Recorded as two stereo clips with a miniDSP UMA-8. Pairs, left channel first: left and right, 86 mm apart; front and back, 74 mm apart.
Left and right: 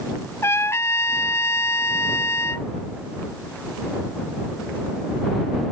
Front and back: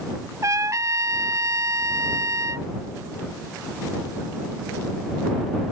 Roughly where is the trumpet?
Behind left.